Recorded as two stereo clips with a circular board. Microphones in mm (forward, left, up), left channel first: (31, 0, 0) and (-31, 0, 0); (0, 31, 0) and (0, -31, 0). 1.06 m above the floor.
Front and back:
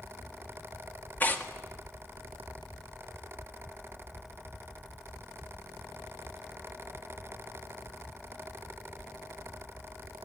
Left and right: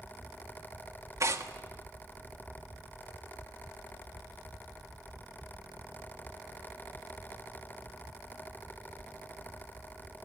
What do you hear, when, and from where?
1.2 s tearing paper: 60° right, 1.7 m